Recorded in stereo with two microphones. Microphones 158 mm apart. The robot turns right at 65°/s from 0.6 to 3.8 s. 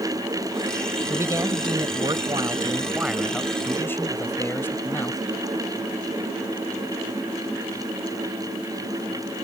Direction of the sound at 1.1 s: 15° right (ahead or behind).